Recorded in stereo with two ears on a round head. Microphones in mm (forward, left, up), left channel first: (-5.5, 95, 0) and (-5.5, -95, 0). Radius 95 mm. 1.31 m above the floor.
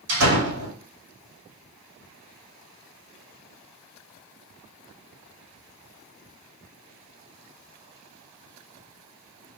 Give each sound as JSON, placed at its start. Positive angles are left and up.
{"t": 0.1, "sound": "a door slam", "side_deg": -75, "distance_m": 2.5}